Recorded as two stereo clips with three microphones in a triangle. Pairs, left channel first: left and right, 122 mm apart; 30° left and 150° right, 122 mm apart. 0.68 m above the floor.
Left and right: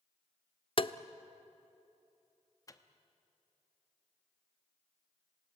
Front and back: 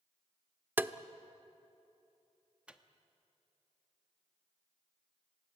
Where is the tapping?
135° left, 0.6 m.